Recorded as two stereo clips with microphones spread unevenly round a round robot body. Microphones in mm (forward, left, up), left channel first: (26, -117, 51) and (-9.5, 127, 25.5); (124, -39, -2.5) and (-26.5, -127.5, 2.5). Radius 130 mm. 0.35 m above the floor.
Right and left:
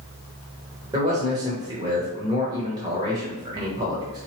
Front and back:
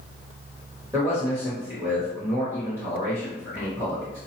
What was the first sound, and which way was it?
A man speaking, 145° left.